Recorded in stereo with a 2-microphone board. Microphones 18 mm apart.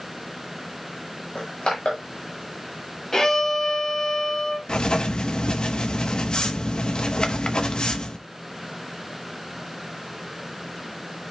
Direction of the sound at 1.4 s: 70° left (ahead or behind).